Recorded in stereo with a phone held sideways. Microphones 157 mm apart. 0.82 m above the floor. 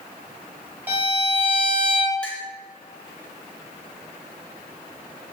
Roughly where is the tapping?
No tapping in this recording.